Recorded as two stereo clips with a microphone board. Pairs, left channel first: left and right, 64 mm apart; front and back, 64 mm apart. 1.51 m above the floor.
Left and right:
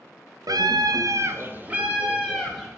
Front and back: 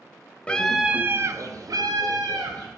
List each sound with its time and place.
0.5 s a scream: 70° right, 0.5 m; by 2.7 s 175° right, 1.3 m